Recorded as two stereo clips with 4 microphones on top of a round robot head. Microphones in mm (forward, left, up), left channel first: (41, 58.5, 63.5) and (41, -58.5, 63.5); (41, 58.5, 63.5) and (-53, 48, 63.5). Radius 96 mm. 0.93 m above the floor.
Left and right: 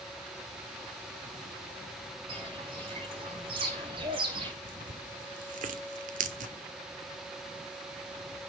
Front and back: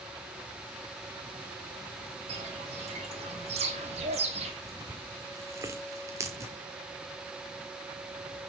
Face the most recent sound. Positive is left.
turn(degrees=-105)